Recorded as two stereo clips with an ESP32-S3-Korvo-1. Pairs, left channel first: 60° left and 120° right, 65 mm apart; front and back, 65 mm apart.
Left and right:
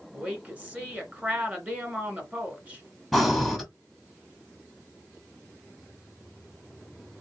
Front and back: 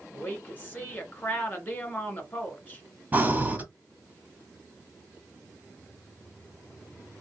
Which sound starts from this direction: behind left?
Breathing, at 3.1 s.